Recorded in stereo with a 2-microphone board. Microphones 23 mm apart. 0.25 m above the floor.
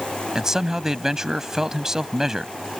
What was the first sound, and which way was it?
A man speaking, 25° right (ahead or behind).